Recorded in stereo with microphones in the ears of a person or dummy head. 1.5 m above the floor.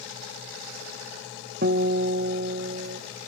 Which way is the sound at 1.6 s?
60° right (ahead or behind).